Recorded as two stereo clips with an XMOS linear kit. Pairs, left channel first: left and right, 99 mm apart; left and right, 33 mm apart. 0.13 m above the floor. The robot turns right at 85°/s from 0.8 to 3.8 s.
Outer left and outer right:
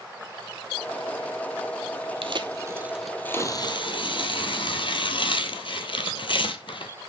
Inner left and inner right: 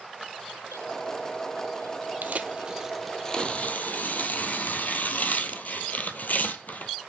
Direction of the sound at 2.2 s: 65° right (ahead or behind).